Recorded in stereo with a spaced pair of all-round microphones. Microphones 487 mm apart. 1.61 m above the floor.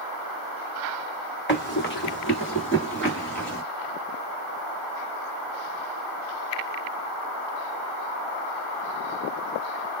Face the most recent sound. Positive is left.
turn(degrees=25)  # may be behind; listen again after turning